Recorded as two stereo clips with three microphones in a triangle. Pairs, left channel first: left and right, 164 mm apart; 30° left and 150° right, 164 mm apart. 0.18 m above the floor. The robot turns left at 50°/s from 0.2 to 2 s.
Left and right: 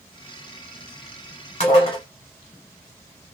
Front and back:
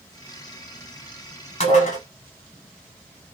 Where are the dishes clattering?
60° left, 1.2 m; by 2.0 s 40° left, 1.2 m.